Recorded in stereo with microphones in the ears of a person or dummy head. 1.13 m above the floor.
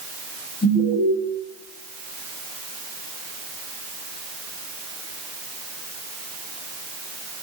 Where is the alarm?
10° left (ahead or behind), 7.5 m.